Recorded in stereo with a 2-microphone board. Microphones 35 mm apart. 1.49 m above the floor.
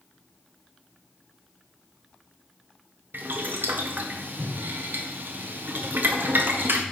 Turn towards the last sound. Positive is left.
turn(degrees=-75)  # may be behind; listen again after turning